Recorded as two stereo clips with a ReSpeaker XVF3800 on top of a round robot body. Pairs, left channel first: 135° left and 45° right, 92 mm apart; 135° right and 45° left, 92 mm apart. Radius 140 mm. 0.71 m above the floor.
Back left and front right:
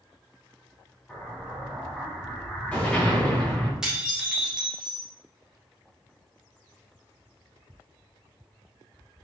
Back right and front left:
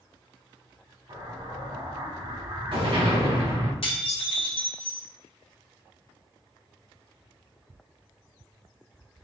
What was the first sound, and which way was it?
An explosion, 60° left.